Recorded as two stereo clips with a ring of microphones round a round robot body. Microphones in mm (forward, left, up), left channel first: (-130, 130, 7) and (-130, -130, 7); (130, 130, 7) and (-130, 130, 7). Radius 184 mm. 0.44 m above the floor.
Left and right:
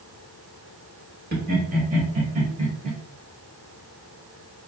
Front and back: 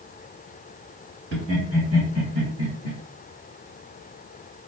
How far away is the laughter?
About 1.5 m.